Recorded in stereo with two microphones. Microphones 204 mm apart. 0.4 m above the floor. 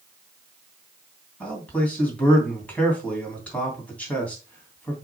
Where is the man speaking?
5° left (ahead or behind), 3 m.